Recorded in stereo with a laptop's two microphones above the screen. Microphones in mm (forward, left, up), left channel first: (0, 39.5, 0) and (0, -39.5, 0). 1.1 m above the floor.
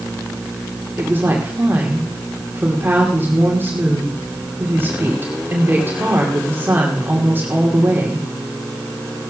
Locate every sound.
1.0 s a woman speaking: 30° right (ahead or behind), 2.5 m